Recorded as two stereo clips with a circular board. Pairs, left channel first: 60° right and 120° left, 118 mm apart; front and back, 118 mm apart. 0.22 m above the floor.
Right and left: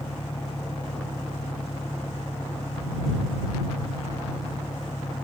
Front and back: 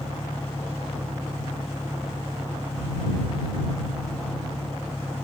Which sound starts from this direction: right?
An engine running, at 0.0 s.